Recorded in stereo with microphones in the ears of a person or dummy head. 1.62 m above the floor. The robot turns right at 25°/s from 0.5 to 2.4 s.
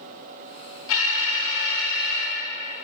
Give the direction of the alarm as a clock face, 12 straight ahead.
9 o'clock.